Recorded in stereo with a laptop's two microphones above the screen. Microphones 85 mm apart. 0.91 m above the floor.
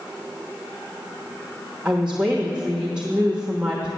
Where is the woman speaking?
15° right (ahead or behind), 1.0 m.